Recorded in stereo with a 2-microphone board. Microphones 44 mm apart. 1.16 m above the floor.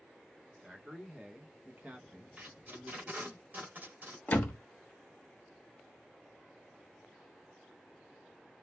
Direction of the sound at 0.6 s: 10° right (ahead or behind).